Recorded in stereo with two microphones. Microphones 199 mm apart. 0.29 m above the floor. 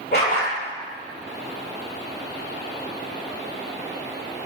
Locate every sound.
0.1 s a dog barking: 55° left (ahead or behind), 2.5 m